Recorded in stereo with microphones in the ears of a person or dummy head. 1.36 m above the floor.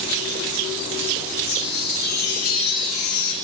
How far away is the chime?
About 6.5 m.